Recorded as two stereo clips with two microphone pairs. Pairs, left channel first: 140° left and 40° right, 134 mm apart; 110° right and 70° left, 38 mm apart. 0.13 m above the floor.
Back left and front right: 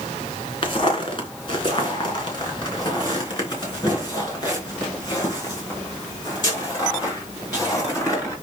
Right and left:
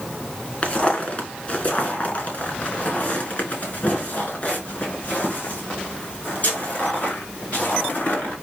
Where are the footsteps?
165° right, 2.5 m; by 8.3 s 155° right, 8 m.